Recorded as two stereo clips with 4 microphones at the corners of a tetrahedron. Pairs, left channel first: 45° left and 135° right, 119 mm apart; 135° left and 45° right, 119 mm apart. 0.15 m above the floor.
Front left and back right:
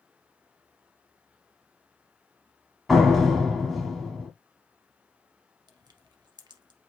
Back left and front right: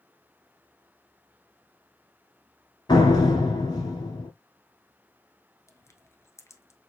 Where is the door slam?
135° left, 1.4 m.